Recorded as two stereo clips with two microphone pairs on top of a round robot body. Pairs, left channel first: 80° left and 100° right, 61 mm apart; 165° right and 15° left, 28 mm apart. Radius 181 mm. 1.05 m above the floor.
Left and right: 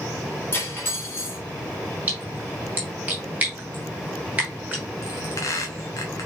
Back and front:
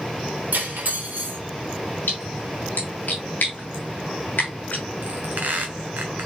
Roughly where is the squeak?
Ahead left.